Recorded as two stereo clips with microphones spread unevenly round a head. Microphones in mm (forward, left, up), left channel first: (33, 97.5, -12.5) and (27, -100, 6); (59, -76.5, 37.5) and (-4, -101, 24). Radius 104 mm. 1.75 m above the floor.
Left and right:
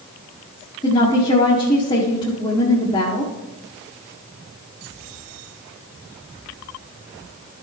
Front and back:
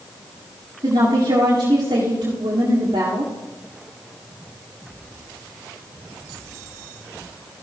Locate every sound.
0.8 s a woman speaking: 160° left, 1.5 m